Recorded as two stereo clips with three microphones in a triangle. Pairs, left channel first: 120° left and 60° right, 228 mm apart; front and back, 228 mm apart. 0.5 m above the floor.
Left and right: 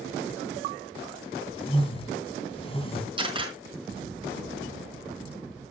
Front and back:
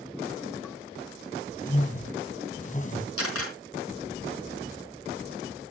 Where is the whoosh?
55° left, 3 m.